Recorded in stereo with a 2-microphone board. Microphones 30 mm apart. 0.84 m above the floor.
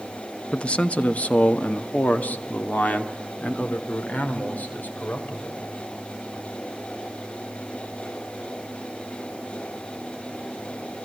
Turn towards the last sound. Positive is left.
turn(degrees=80)